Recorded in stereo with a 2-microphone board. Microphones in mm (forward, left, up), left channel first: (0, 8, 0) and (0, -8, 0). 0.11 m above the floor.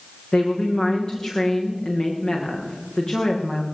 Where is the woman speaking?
75° left (ahead or behind), 8 m.